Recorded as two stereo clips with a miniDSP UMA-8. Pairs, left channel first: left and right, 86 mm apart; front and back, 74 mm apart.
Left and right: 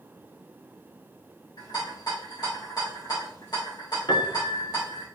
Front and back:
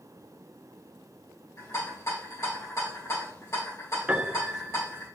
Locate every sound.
1.6 s a rattle: 50° left, 3.5 m
4.1 s a piano: 115° left, 1.0 m